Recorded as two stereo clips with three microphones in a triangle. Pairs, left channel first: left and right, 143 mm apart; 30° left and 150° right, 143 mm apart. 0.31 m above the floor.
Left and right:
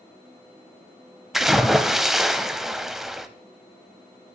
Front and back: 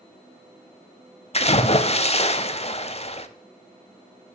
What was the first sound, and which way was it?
A splash, straight ahead.